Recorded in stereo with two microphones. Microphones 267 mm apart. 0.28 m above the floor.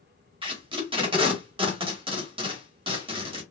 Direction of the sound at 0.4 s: 20° right (ahead or behind).